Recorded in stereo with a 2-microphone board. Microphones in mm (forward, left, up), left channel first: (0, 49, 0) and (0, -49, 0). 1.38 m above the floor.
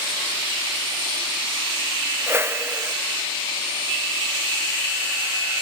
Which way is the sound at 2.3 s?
25° right (ahead or behind).